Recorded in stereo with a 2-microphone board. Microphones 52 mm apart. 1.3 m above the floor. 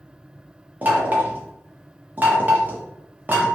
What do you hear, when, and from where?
0.8 s knocking: 35° right (ahead or behind), 0.6 m